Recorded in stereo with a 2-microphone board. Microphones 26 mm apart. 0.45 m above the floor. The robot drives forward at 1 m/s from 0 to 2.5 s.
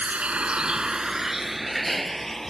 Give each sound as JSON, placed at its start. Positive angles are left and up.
{"t": 0.0, "sound": "a vehicle", "side_deg": -70}